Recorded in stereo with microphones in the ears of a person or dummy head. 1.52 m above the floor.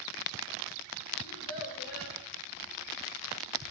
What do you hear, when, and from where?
1.2 s a child speaking: 75° left (ahead or behind), 2.0 m